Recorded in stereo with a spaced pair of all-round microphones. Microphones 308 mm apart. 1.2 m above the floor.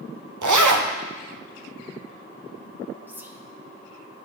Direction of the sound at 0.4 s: 85° right.